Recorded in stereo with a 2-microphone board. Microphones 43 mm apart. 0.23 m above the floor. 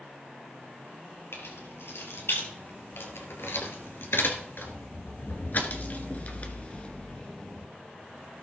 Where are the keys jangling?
80° left, 3.5 m; by 7.7 s 20° left (ahead or behind), 2 m.